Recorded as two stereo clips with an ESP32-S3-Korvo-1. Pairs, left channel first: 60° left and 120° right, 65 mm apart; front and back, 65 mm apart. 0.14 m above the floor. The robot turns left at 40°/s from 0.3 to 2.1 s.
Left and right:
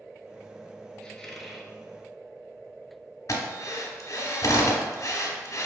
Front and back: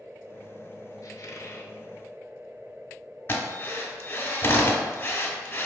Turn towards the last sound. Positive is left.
turn(degrees=40)